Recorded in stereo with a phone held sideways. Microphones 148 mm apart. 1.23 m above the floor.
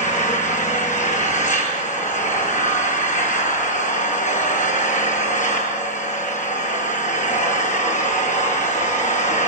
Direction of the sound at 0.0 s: 55° left (ahead or behind).